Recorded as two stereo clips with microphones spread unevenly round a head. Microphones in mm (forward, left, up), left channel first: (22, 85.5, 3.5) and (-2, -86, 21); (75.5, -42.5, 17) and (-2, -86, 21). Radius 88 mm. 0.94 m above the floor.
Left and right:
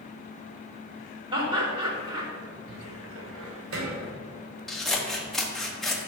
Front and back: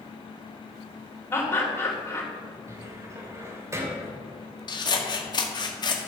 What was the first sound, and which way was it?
Laughter, 35° right.